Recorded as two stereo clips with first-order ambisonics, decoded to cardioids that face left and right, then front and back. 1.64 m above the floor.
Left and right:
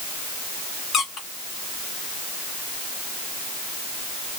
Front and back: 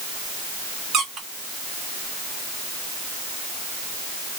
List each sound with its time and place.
0.9 s a squeak: 145° left, 0.8 m